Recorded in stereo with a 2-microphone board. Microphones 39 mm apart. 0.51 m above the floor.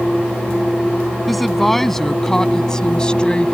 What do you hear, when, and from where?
1.3 s a woman speaking: 5° left (ahead or behind); by 3.5 s 30° left (ahead or behind)